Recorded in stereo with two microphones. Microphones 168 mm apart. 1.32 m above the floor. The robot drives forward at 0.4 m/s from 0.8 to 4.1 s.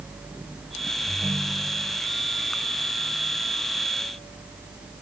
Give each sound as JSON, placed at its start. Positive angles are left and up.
{"t": 1.1, "sound": "a ringtone", "side_deg": -10}